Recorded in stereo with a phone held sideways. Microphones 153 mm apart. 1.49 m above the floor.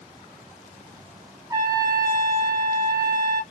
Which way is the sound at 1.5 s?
25° right (ahead or behind).